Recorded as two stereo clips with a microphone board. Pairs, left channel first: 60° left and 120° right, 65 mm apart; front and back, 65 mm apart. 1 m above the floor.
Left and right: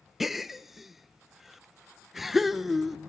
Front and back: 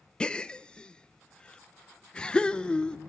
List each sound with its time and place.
0.2 s a gasp: 40° right, 0.6 m